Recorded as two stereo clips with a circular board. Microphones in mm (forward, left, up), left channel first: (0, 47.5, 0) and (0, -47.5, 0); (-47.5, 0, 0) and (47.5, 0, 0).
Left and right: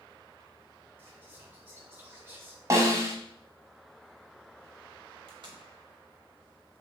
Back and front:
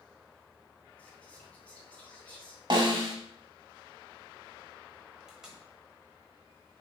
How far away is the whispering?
About 0.9 m.